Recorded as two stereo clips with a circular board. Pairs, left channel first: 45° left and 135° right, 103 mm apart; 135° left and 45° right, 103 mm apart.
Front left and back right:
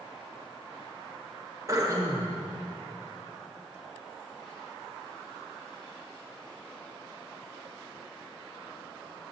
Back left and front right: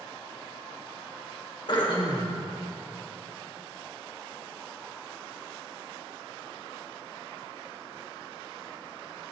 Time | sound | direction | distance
1.7 | throat clearing | 170° left | 1.1 m